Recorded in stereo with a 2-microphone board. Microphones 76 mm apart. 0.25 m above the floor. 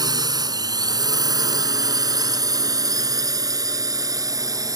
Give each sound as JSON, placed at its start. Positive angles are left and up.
{"t": 0.0, "sound": "a drone", "side_deg": -60}